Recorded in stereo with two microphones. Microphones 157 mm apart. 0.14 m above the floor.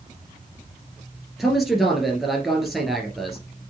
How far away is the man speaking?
About 1.9 m.